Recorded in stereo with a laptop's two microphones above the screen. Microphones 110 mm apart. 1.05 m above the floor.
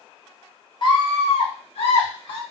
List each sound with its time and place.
0.8 s a scream: 45° left (ahead or behind), 0.8 m; by 2.4 s 55° left (ahead or behind), 1.1 m